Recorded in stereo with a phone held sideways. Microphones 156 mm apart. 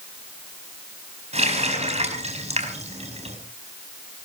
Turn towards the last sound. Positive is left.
turn(degrees=-45)  # may be behind; listen again after turning